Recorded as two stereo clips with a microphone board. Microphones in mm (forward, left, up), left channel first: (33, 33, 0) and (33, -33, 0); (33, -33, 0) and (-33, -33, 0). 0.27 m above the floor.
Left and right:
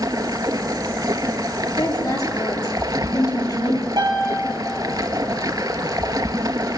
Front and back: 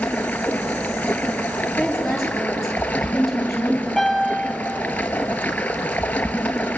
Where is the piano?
85° right, 6 m.